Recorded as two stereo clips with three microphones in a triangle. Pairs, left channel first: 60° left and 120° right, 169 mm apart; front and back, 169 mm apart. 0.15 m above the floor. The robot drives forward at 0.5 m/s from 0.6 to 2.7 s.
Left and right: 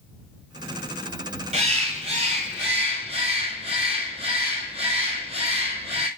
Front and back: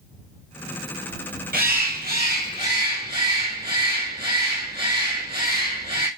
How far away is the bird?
About 1.1 m.